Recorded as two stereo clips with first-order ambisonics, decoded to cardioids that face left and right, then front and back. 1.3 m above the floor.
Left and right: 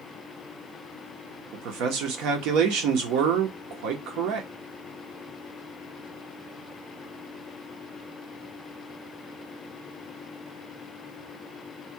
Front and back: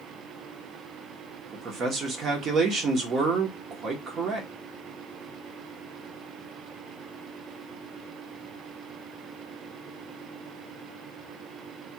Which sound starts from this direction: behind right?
A man speaking, at 1.5 s.